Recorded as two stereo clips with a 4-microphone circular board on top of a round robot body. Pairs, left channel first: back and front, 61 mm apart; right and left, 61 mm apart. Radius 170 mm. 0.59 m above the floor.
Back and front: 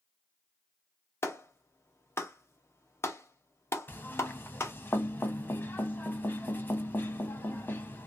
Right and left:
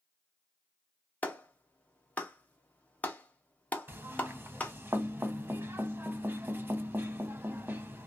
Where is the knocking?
140° left, 1.0 m.